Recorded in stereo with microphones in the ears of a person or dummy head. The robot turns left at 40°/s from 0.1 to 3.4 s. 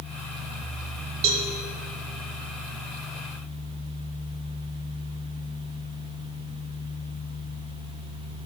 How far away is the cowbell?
About 1.7 m.